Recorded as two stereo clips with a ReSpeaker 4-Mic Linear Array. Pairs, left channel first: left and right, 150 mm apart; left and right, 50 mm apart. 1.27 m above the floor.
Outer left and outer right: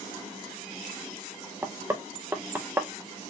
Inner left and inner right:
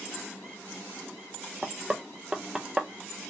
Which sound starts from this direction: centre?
Knocking, at 1.6 s.